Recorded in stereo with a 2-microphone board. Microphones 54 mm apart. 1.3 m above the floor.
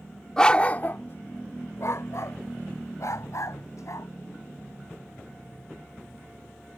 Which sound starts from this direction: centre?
A dog barking, at 0.4 s.